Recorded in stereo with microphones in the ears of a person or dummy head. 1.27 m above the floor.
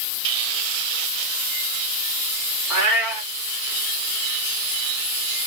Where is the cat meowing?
10° right (ahead or behind), 1.8 m.